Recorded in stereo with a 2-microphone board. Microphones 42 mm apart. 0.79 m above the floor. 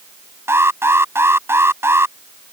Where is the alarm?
80° right.